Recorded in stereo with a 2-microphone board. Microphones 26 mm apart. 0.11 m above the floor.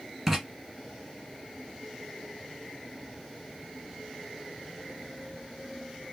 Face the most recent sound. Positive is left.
turn(degrees=-15)  # may be behind; listen again after turning